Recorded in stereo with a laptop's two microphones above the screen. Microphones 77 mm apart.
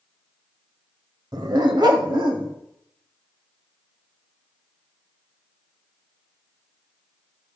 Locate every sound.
1.3 s a dog barking: 60° right (ahead or behind), 1.1 m; by 2.5 s 80° right, 2.5 m